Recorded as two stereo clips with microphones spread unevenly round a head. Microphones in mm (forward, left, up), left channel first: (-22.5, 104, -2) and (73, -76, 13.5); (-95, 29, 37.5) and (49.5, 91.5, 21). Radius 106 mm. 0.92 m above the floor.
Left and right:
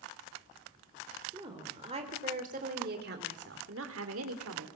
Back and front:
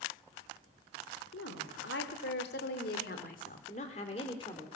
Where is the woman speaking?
135° right, 3 m; by 4.7 s 85° right, 2.5 m.